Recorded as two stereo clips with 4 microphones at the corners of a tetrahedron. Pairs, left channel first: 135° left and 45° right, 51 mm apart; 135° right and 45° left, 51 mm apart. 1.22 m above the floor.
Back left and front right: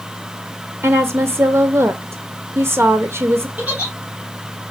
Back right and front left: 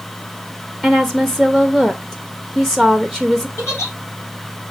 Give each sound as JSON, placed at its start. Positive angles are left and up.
{"t": 0.8, "sound": "a woman speaking", "azimuth_deg": -50, "distance_m": 0.7}
{"t": 3.6, "sound": "a giggle", "azimuth_deg": -105, "distance_m": 3.0}